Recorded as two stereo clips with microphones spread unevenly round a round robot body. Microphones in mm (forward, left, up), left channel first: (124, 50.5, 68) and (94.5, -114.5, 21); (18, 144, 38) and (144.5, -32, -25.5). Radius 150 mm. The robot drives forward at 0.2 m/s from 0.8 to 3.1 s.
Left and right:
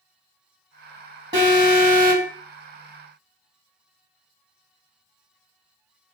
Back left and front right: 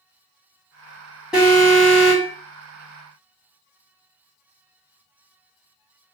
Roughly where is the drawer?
I don't hear a drawer.